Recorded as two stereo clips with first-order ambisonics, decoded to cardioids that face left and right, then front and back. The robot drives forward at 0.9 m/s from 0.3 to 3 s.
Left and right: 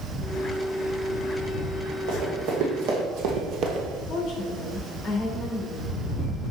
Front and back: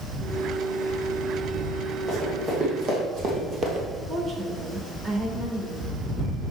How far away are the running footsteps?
About 3 m.